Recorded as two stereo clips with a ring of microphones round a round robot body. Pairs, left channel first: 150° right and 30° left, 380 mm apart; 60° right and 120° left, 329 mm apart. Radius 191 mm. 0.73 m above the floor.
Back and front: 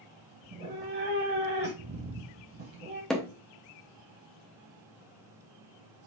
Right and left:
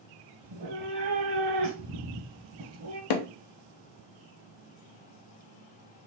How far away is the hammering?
About 0.7 m.